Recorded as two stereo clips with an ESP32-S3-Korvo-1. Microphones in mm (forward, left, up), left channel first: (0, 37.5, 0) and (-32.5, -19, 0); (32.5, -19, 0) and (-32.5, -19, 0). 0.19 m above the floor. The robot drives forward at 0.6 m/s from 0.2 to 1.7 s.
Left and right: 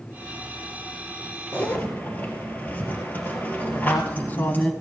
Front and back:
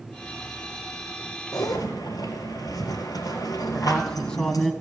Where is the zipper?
Straight ahead, 2.5 m.